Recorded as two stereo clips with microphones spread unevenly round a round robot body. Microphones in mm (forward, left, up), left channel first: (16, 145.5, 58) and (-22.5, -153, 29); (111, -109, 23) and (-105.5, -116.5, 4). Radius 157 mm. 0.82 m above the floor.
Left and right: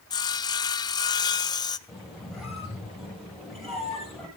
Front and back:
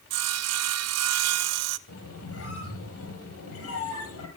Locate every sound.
0.1 s sawing: 160° left, 0.6 m
1.9 s a squeak: 5° right, 7.5 m